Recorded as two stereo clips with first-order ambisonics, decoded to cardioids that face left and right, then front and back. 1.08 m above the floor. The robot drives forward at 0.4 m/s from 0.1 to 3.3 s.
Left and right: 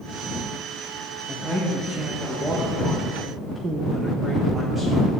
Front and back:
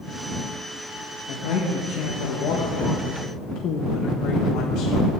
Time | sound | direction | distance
1.3 | a man speaking | 10° right | 1.6 m